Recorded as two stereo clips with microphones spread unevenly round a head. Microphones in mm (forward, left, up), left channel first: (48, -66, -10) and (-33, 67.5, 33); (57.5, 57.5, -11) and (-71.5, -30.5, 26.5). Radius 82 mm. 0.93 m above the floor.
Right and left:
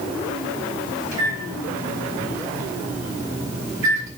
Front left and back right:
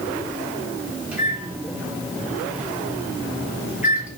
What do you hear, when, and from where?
1.1 s a microwave: 135° left, 3.5 m